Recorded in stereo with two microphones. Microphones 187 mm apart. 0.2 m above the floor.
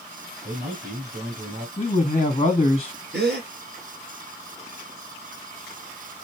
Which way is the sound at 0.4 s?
40° right (ahead or behind).